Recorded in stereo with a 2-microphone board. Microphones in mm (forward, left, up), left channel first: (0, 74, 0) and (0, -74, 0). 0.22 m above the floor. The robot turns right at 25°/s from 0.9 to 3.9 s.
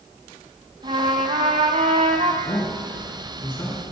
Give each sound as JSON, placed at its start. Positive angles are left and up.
{"t": 0.8, "sound": "a trumpet", "azimuth_deg": -120, "distance_m": 0.7}
{"t": 2.4, "sound": "a man speaking", "side_deg": 50, "distance_m": 3.0}